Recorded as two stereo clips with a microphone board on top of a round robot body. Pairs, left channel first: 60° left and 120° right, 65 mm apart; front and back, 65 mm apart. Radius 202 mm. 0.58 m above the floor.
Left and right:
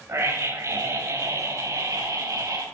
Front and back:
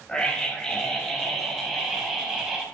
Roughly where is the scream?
Right.